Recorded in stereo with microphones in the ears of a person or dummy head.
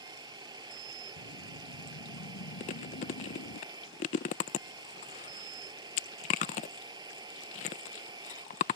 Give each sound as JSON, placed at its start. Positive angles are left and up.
{"t": 0.0, "sound": "a machine running", "side_deg": -25}
{"t": 1.2, "sound": "a whoosh", "side_deg": 85}
{"t": 2.6, "sound": "chewing", "side_deg": 35}